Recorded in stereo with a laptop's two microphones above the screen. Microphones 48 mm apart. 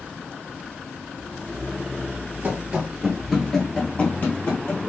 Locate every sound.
2.4 s running footsteps: 35° right (ahead or behind), 1.2 m; by 4.8 s 45° left (ahead or behind), 1.8 m